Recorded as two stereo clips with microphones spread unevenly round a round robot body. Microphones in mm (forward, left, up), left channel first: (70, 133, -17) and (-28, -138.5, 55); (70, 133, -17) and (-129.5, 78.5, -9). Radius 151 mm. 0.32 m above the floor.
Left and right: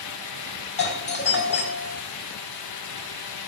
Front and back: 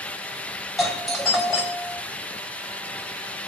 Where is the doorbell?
105° left, 2.5 m.